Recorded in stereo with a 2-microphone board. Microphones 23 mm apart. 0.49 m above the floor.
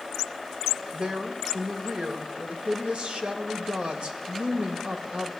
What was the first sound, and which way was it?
A woman speaking, 60° right (ahead or behind).